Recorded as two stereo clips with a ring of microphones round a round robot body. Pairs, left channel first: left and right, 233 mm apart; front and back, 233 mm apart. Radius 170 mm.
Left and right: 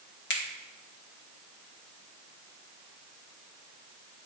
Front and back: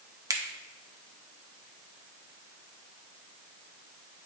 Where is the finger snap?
110° left, 1.3 m.